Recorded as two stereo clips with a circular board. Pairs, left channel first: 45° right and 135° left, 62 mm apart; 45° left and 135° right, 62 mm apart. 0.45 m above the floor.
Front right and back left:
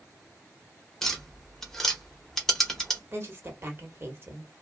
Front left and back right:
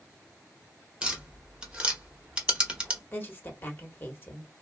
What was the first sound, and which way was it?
Tapping, 120° right.